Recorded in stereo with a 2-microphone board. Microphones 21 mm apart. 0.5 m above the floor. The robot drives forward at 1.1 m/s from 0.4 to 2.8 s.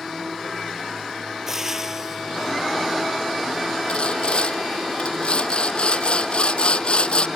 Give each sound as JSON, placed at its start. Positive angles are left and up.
{"t": 1.5, "sound": "frying", "side_deg": -20}
{"t": 3.9, "sound": "sawing", "side_deg": 55}